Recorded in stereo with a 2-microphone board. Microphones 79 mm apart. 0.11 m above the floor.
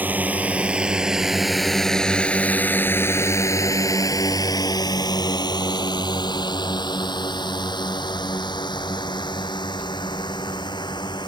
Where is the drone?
20° right (ahead or behind); by 11.3 s 70° left (ahead or behind).